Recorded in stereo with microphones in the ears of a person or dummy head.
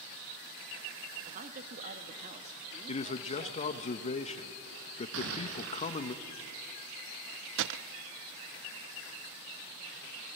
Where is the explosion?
70° right (ahead or behind), 4 m.